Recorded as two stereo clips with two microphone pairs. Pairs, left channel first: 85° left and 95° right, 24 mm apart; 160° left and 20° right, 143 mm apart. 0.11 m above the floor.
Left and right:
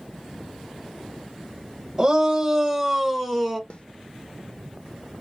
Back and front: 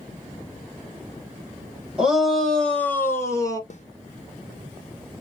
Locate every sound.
2.0 s a shout: 100° right, 1.2 m; by 3.6 s 160° left, 1.2 m
3.7 s a snare drum: 125° left, 0.9 m